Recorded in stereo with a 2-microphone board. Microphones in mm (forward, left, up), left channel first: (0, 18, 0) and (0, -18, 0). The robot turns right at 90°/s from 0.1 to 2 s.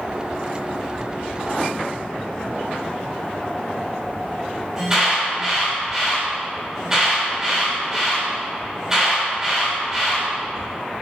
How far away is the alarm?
About 4 m.